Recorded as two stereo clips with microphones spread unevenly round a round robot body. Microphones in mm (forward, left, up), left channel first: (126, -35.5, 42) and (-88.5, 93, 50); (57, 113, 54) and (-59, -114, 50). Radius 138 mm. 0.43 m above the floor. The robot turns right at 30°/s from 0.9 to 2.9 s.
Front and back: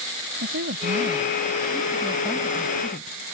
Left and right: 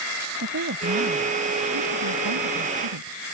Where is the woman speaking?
160° right; by 3.4 s 100° right.